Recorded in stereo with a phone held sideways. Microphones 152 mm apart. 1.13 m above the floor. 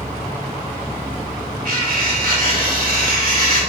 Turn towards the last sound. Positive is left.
turn(degrees=-65)  # may be behind; listen again after turning